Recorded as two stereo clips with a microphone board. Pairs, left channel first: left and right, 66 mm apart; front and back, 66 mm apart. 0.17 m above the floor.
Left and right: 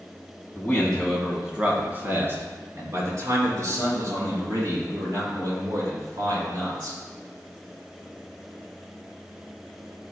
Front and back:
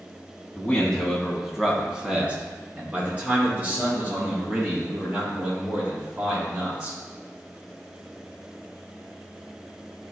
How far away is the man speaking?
About 1.3 m.